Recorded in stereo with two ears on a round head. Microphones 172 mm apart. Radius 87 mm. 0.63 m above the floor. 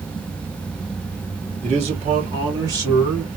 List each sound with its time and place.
1.6 s a man speaking: 35° right (ahead or behind), 1.3 m; by 3.3 s 15° right (ahead or behind), 2 m